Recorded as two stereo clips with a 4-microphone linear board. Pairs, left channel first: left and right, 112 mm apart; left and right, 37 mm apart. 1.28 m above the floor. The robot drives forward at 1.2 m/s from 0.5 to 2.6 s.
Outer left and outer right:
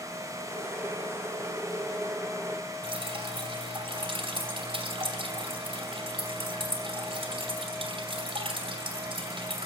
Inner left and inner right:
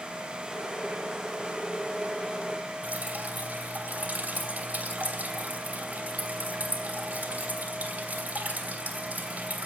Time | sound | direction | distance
2.8 | dripping | 50° right (ahead or behind) | 2.5 m